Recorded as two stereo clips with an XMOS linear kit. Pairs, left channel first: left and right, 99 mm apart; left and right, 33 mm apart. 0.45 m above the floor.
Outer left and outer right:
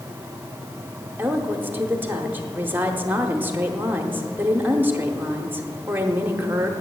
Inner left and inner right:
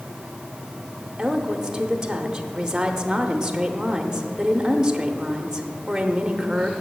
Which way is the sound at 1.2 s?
20° right (ahead or behind).